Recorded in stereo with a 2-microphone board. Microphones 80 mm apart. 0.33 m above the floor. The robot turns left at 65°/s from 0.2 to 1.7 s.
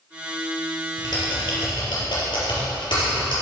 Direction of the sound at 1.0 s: 50° left (ahead or behind).